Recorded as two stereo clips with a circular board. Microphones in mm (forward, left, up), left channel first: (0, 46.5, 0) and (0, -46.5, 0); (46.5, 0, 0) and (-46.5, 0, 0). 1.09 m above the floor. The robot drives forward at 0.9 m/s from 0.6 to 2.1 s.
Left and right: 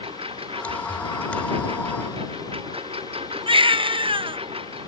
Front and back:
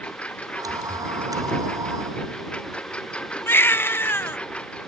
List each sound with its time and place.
0.0 s a lawn mower: 80° right
3.5 s a baby crying: 65° right